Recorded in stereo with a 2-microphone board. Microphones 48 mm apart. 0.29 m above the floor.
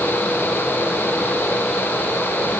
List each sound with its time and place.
Only background noise.